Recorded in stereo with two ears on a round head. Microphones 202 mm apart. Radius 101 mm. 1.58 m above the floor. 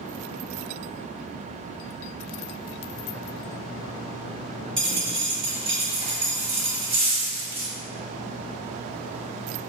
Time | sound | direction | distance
4.8 | a dropped coin | 25° right (ahead or behind) | 1.3 m